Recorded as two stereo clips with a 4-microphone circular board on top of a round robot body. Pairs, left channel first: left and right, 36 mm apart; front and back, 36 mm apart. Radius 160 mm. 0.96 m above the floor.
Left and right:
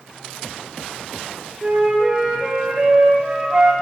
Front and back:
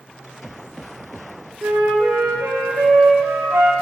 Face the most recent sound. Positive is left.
turn(degrees=-170)